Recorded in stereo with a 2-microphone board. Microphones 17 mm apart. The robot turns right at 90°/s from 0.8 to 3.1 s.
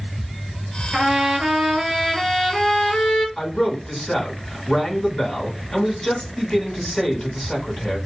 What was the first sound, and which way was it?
A trumpet, 145° right.